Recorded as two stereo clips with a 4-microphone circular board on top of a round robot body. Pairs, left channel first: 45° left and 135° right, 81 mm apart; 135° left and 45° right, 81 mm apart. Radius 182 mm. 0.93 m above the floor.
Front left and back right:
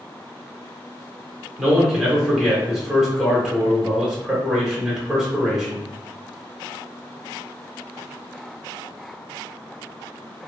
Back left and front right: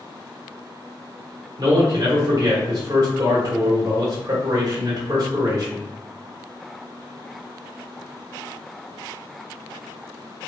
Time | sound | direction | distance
1.6 | a man speaking | 50° right | 1.4 m